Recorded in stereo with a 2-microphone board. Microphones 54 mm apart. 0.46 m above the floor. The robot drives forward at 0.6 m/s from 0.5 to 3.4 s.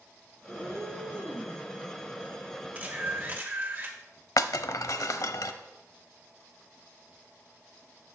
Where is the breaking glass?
85° left, 0.6 m.